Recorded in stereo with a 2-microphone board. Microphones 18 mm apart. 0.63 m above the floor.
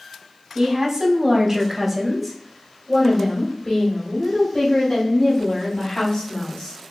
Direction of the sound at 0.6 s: 45° right (ahead or behind).